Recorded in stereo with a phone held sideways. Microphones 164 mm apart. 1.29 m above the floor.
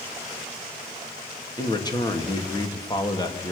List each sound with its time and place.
1.6 s a man speaking: 25° left (ahead or behind), 2.5 m